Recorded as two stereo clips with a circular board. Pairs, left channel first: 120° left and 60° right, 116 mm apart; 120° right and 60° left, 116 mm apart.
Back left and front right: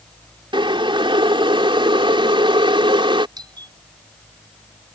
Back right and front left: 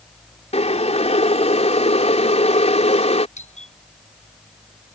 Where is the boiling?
100° right.